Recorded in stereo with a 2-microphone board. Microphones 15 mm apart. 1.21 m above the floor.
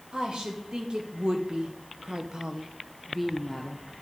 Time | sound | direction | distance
0.1 | a woman speaking | 70° right (ahead or behind) | 1.8 m